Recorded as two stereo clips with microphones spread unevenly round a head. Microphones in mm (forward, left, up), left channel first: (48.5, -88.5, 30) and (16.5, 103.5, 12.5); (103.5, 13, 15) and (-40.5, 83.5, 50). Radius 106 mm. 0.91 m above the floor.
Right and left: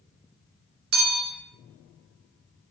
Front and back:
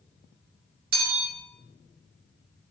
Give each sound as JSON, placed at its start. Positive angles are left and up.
{"t": 0.9, "sound": "a bell", "azimuth_deg": 125, "distance_m": 1.3}